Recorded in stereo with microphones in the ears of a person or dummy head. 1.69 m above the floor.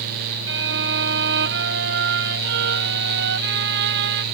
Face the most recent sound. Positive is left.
turn(degrees=-65)  # may be behind; listen again after turning